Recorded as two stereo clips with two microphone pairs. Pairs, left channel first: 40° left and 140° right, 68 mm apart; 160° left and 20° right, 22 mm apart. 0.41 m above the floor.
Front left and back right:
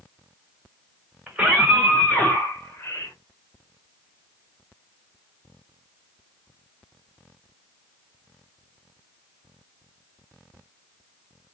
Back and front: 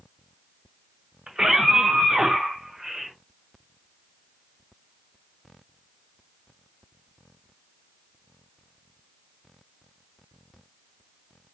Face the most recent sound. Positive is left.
turn(degrees=35)